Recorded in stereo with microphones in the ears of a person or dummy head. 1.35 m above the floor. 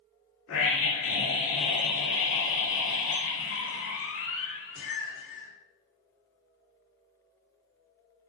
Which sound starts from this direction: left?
A scream, at 0.5 s.